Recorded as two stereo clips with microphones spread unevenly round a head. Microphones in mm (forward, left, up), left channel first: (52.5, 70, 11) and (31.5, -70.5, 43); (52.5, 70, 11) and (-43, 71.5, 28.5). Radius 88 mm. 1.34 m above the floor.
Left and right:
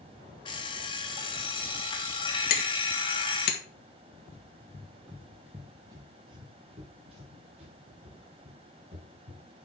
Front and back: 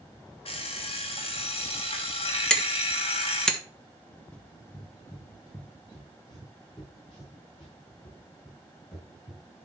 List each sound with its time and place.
0.5 s an alarm clock: 20° left, 2 m
2.5 s hammering: 80° left, 1.7 m
4.3 s running footsteps: 90° left, 1.3 m; by 9.4 s 70° right, 4.5 m